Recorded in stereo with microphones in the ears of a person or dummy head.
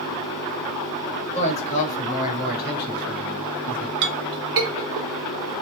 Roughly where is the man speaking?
Left.